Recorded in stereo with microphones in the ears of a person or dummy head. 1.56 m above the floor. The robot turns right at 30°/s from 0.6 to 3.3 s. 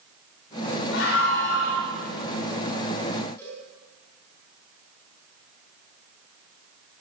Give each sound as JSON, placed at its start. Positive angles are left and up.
{"t": 0.9, "sound": "a scream", "side_deg": 85, "distance_m": 7.0}
{"t": 3.4, "sound": "a cowbell", "side_deg": 20, "distance_m": 9.5}